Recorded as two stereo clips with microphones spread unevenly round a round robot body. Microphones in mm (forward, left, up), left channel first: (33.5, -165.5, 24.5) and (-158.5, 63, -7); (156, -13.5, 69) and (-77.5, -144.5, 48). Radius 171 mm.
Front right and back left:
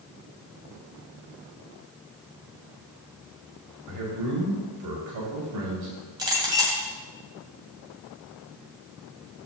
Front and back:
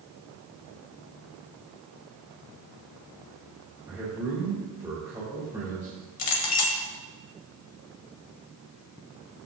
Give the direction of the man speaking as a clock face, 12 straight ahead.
8 o'clock.